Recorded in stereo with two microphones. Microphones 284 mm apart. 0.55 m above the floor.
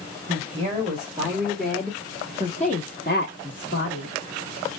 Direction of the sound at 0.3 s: 30° right (ahead or behind).